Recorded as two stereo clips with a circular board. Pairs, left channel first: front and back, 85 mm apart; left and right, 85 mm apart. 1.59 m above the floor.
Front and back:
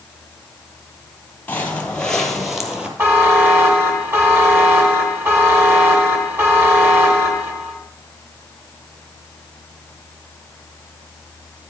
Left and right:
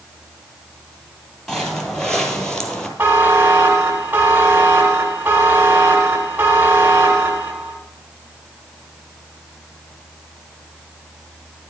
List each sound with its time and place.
1.5 s footsteps: 20° left, 1.6 m; by 2.9 s 150° left, 1.6 m
3.0 s a buzzer: 140° right, 1.5 m